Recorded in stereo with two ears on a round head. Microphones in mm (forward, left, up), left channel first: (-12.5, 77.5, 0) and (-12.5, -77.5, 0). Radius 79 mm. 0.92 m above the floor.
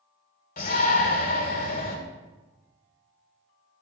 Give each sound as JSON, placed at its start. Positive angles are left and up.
{"t": 0.6, "sound": "a shout", "side_deg": 55, "distance_m": 2.5}